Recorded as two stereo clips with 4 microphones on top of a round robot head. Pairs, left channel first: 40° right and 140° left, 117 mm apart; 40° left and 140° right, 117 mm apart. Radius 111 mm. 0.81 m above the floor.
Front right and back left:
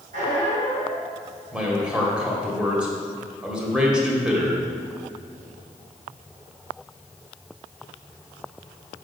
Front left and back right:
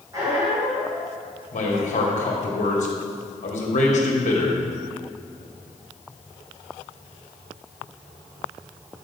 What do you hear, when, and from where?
0.1 s a squeak: 155° left, 3.5 m
1.5 s a man speaking: 55° left, 2 m